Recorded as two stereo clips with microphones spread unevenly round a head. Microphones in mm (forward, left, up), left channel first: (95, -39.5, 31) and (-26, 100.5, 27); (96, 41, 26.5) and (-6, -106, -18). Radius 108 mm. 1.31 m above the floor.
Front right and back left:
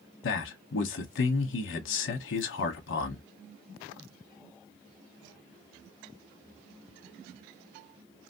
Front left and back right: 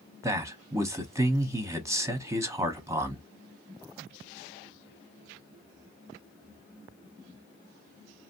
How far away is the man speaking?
About 0.8 m.